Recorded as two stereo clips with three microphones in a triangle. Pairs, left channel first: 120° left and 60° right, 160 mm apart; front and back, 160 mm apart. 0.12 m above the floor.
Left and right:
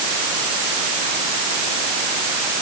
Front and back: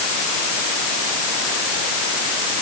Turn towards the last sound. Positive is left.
No sound to turn to.